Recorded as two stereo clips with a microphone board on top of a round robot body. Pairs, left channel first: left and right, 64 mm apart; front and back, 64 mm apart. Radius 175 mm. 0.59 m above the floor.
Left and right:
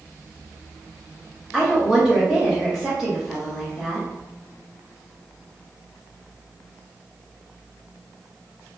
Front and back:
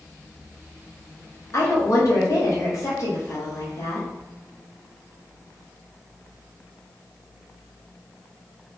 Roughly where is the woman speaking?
Ahead.